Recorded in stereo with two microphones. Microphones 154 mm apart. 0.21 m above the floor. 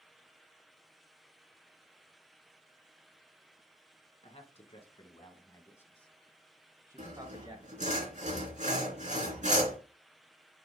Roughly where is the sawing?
Right.